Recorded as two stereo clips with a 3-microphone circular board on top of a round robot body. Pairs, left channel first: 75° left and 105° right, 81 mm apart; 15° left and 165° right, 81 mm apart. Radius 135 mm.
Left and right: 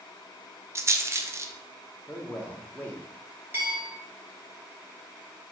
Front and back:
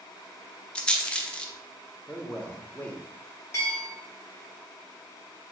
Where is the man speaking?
50° left, 1.0 m.